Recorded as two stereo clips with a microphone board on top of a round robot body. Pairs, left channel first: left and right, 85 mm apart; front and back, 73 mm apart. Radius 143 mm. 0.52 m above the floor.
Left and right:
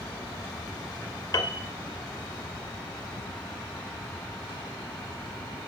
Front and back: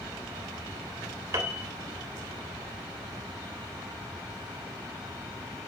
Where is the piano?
130° left, 2.5 m.